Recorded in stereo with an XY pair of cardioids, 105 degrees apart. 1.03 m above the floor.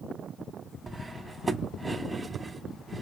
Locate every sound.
0.9 s cutlery clinking: 20° right, 0.7 m